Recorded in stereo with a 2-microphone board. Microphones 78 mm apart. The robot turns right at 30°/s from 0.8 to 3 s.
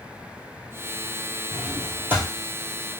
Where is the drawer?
5° right (ahead or behind), 1.3 m; by 2.3 s 30° right (ahead or behind), 1.3 m.